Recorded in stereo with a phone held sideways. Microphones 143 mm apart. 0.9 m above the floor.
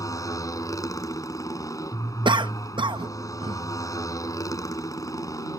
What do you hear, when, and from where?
0.0 s a motorcycle: 25° left (ahead or behind)
2.2 s a cough: 35° right (ahead or behind)